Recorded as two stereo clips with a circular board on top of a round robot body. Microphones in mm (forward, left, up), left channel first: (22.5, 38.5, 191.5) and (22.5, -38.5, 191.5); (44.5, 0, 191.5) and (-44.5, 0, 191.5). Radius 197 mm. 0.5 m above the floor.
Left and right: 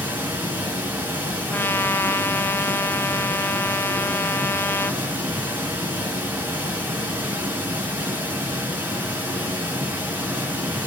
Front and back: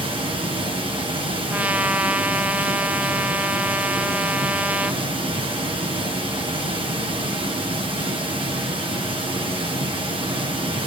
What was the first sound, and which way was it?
Running water, 160° right.